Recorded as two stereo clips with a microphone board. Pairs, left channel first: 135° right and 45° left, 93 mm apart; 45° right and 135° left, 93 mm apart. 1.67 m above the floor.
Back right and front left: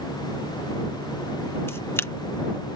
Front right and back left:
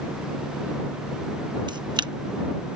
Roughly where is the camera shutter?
Behind.